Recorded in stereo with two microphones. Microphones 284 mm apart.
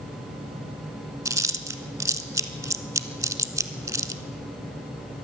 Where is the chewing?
10° right (ahead or behind), 0.6 m.